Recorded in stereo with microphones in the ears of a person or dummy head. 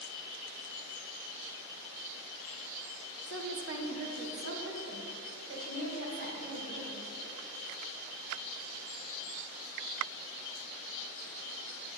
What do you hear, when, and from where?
3.3 s a woman speaking: 60° right (ahead or behind), 0.7 m; by 7.1 s 75° right (ahead or behind), 2.5 m